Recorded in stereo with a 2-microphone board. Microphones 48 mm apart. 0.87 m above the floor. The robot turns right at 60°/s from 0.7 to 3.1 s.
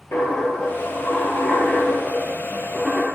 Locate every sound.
0.1 s a dropped coin: 60° left, 2.5 m; by 3.0 s 155° right, 2.5 m